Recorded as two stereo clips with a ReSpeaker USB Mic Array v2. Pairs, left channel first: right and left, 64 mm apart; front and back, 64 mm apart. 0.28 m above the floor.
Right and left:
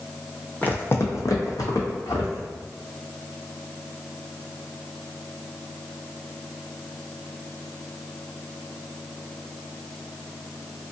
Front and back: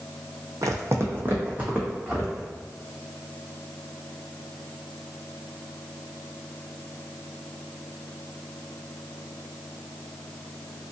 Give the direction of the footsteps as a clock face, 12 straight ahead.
5 o'clock.